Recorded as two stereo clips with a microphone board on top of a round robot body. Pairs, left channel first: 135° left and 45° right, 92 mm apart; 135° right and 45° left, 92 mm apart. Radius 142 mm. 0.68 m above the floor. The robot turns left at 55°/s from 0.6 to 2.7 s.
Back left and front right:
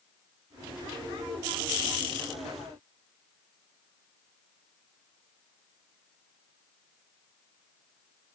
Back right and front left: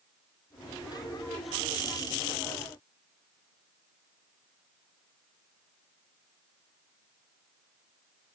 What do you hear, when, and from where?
Only background noise.